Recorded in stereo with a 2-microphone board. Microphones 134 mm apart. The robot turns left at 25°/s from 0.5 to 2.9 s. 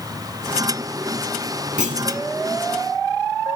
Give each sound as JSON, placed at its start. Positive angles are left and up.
{"t": 1.8, "sound": "a clunk", "side_deg": -75, "distance_m": 2.5}